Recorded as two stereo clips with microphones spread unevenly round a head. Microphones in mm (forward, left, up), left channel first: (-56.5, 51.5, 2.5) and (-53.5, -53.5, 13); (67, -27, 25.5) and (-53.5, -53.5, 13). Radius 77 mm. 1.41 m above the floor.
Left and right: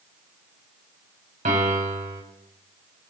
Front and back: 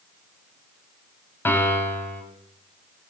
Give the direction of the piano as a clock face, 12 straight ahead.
2 o'clock.